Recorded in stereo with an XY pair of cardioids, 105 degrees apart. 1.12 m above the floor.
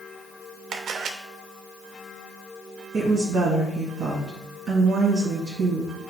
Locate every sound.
0.7 s a camera shutter: 60° right, 0.9 m
2.9 s a woman speaking: 45° right, 1.8 m